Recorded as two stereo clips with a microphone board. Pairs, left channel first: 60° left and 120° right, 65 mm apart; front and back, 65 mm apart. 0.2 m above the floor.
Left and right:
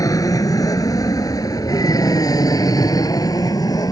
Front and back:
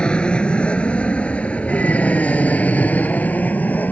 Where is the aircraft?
75° left; by 3.9 s 65° left.